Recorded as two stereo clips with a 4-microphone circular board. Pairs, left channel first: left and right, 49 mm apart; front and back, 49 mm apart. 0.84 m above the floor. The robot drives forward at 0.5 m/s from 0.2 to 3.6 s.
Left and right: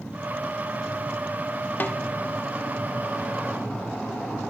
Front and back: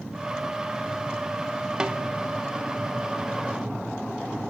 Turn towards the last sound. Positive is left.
turn(degrees=160)